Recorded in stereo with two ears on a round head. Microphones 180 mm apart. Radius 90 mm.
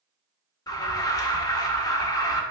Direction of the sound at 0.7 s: 15° left (ahead or behind).